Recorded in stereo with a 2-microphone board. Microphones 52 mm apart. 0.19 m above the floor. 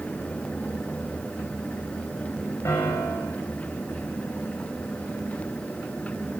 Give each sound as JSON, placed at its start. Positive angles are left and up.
{"t": 2.6, "sound": "a piano", "side_deg": 70, "distance_m": 4.0}